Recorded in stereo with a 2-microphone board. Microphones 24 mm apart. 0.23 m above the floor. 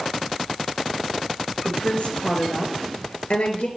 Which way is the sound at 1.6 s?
65° left (ahead or behind).